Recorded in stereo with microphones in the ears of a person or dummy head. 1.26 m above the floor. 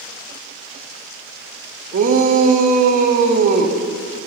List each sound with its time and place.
1.9 s a shout: 45° right (ahead or behind), 0.8 m